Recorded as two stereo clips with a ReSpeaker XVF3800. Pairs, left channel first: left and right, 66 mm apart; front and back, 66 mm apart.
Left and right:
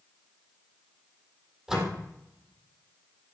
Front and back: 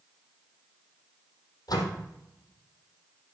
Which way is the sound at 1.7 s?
5° right.